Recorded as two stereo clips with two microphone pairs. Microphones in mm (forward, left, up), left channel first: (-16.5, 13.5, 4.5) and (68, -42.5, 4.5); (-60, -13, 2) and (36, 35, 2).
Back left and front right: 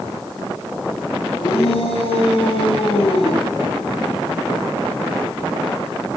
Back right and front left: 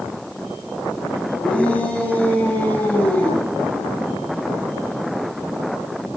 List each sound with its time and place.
1.4 s a shout: 130° left, 7 m